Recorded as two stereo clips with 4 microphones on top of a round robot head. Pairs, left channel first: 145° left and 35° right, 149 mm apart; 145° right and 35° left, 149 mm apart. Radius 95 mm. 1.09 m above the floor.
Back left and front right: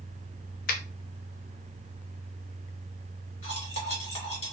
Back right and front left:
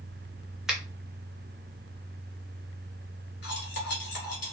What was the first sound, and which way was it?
A finger snap, 120° left.